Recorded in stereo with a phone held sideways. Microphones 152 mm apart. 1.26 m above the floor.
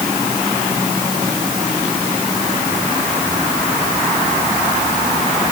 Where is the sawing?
No sawing in this recording.